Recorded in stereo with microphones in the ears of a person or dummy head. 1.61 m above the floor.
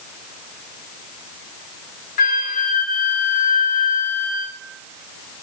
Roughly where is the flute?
Left.